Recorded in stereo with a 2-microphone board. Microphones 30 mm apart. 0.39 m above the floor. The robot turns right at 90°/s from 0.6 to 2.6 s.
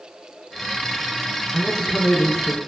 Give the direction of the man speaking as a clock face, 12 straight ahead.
11 o'clock.